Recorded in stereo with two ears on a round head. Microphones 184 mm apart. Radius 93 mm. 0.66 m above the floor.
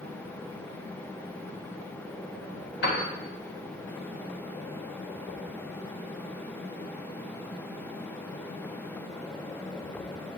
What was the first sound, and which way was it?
A piano, 55° left (ahead or behind).